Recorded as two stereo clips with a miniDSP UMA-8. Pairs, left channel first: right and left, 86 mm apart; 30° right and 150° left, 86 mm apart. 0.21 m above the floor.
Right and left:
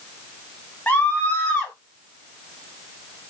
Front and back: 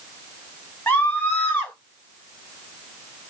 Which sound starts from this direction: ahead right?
A scream, at 0.9 s.